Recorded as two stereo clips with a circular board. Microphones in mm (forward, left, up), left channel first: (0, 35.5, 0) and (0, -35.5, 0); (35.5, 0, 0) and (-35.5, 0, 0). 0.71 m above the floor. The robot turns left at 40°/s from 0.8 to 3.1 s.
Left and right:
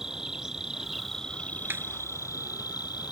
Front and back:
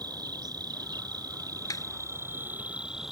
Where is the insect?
170° right; by 3.1 s 95° left.